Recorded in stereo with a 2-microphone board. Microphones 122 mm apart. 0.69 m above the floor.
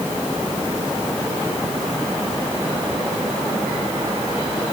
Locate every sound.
Only background noise.